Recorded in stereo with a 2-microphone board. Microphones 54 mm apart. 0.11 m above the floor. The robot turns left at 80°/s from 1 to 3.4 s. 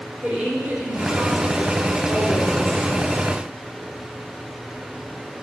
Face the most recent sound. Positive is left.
turn(degrees=50)